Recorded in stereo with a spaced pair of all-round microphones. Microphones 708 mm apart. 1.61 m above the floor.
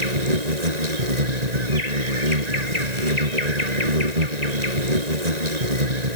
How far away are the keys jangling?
I don't hear keys jangling.